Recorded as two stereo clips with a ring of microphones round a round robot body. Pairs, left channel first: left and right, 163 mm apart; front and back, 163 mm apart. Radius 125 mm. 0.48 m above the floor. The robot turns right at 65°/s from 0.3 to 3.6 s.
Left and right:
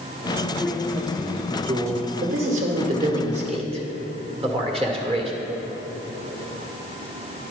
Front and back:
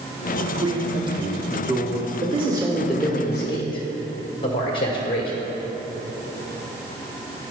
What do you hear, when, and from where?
0.6 s a man speaking: 160° left, 0.7 m; by 2.1 s 100° right, 0.7 m
2.2 s a man speaking: 140° right, 1.5 m; by 5.3 s 50° right, 1.5 m